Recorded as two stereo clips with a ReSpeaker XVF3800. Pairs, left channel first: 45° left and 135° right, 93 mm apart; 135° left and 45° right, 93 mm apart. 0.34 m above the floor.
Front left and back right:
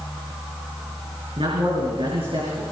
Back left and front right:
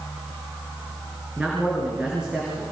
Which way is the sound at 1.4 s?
125° right.